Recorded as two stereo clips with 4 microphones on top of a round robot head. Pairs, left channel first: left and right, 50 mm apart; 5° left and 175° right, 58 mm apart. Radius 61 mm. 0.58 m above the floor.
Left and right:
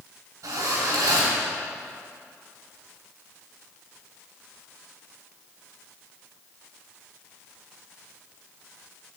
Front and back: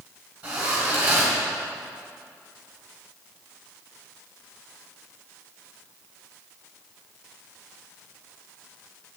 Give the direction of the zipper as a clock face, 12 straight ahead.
4 o'clock.